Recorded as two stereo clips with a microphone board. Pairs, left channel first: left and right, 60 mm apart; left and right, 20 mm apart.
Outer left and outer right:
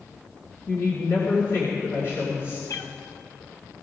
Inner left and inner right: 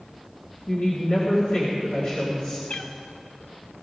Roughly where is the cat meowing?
Left.